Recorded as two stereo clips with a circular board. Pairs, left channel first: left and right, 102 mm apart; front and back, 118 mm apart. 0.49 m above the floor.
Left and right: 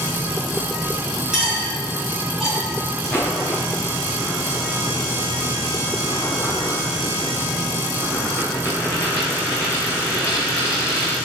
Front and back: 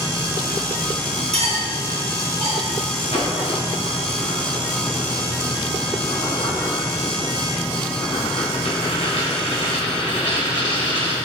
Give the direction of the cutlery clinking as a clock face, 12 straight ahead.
6 o'clock.